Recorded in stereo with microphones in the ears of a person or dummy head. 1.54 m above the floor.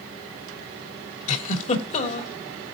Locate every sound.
1.3 s a giggle: 40° left (ahead or behind), 3 m